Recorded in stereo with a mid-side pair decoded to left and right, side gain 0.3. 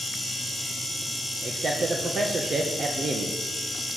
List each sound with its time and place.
1.4 s a man speaking: 60° right, 1.8 m